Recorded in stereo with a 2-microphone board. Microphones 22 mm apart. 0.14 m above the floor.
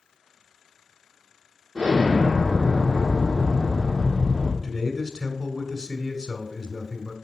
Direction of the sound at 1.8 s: 50° right (ahead or behind).